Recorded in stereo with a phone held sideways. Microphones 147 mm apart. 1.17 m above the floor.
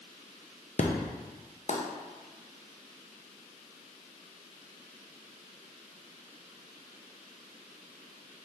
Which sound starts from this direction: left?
An explosion, at 0.8 s.